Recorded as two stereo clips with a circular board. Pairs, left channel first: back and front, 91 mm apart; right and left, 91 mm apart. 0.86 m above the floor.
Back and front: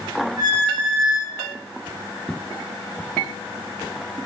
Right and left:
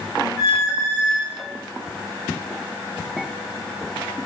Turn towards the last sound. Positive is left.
turn(degrees=-45)